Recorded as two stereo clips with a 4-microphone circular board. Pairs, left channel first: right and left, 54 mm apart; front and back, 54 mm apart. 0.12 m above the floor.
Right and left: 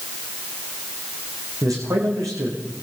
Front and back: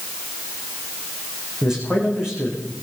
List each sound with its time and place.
1.6 s a man speaking: 105° left, 9.5 m